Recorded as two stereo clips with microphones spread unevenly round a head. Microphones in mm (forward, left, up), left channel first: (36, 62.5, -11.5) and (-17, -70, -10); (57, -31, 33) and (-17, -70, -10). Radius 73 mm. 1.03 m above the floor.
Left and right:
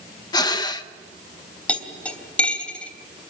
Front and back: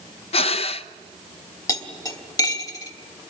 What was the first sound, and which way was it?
Breathing, 10° left.